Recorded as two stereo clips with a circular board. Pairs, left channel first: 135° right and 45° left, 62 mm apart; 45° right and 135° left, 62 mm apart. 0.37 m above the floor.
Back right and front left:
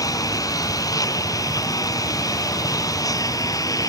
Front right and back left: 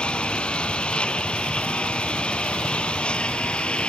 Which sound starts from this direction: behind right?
A lawn mower, at 0.0 s.